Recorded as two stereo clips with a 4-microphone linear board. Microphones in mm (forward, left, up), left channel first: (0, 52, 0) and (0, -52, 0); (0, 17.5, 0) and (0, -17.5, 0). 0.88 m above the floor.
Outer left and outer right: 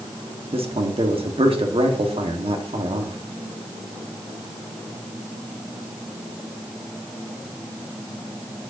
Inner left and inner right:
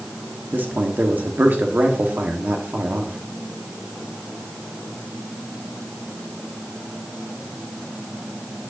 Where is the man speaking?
60° right (ahead or behind), 1.6 m.